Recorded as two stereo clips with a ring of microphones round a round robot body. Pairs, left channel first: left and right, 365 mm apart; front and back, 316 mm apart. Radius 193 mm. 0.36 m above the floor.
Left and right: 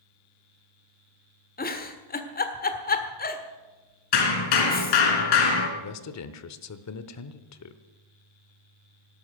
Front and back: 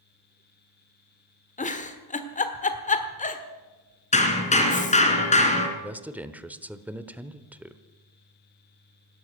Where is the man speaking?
95° left, 1.0 m.